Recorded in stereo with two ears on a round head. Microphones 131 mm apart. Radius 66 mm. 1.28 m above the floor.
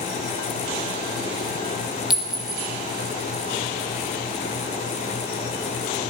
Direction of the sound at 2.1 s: 5° right (ahead or behind).